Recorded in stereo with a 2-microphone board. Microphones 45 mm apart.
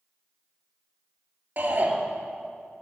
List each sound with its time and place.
1.6 s a shout: 45° right (ahead or behind), 2.5 m